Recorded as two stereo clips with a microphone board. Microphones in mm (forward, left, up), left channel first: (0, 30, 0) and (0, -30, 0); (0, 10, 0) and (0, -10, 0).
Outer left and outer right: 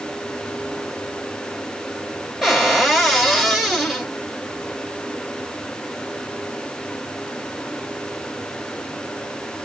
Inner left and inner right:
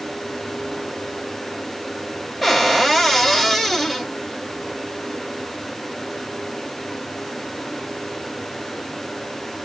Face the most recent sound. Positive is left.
turn(degrees=0)  # may be behind; listen again after turning